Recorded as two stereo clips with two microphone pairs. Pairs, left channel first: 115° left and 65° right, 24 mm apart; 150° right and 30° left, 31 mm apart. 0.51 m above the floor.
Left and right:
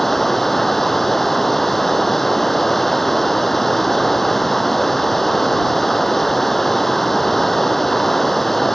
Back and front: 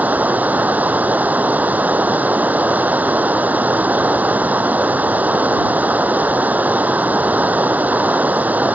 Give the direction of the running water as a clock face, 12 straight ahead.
11 o'clock.